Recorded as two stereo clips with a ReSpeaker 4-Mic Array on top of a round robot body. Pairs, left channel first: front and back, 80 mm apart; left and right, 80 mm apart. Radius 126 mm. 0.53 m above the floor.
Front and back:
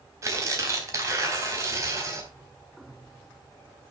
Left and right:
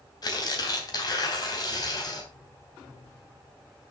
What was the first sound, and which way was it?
Tearing paper, 125° left.